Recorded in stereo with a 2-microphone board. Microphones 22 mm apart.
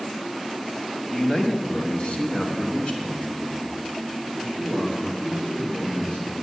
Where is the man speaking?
25° left (ahead or behind), 1.1 m; by 6.3 s 55° left (ahead or behind), 5.5 m.